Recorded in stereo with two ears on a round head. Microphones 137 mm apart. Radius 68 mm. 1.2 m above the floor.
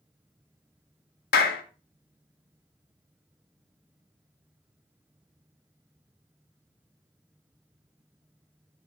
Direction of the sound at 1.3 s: 65° left (ahead or behind).